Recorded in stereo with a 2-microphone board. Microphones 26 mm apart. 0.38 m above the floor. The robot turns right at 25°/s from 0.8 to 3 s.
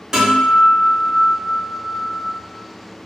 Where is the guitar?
40° right, 1.6 m; by 2.2 s 5° right, 1.6 m.